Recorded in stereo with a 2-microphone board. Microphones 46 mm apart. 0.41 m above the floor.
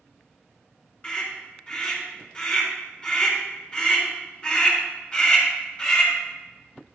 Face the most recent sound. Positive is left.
turn(degrees=25)  # may be behind; listen again after turning